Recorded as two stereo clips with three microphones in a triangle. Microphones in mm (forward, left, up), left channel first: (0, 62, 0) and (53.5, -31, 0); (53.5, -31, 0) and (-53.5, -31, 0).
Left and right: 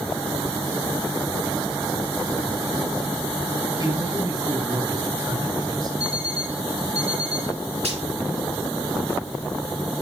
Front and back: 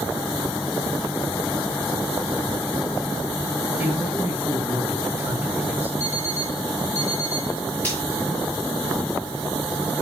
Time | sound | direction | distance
3.8 | a man speaking | 105° right | 3 m
6.0 | an alarm clock | 65° right | 4.5 m
7.8 | frying | 75° right | 8 m